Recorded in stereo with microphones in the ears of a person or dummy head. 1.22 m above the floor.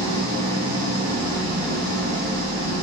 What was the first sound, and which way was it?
An engine running, 35° right (ahead or behind).